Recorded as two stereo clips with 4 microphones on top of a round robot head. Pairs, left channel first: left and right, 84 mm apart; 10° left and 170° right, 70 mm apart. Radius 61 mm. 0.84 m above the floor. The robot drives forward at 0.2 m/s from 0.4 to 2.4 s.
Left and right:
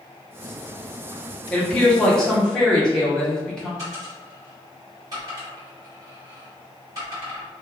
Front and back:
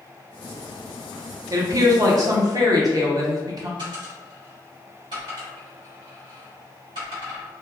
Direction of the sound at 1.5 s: 165° left.